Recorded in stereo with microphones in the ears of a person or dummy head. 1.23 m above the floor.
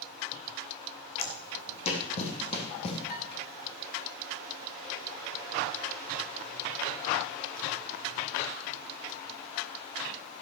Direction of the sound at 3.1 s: 50° left (ahead or behind).